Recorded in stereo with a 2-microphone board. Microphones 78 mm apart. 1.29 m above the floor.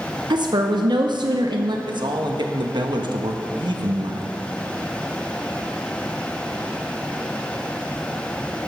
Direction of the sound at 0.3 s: 70° right (ahead or behind).